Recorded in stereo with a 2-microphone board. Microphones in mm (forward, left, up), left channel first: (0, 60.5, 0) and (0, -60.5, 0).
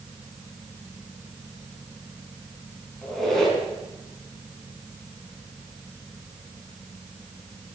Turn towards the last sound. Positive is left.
turn(degrees=5)  # may be behind; listen again after turning